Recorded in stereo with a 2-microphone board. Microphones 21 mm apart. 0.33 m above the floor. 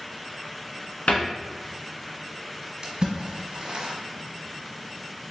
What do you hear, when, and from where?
1.1 s a cupboard door: 80° left, 1.0 m
2.8 s a splash: 55° right (ahead or behind), 1.1 m